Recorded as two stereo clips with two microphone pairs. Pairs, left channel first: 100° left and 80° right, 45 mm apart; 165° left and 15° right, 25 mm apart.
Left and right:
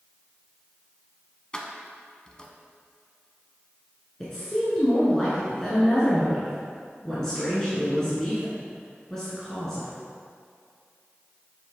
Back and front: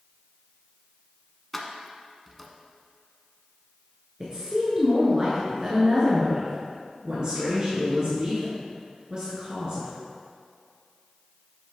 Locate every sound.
1.5 s keys jangling: 85° left, 0.7 m
4.2 s a woman speaking: 30° left, 1.6 m